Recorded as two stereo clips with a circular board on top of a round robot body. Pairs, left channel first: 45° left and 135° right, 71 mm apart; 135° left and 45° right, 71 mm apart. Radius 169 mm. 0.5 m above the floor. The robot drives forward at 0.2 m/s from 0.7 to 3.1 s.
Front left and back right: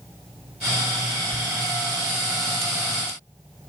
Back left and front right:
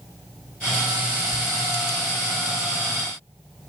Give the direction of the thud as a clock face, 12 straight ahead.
7 o'clock.